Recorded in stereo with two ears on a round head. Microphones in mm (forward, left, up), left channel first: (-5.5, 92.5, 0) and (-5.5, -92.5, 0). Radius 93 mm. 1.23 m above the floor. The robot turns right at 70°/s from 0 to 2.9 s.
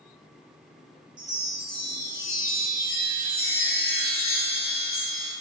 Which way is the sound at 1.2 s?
30° right.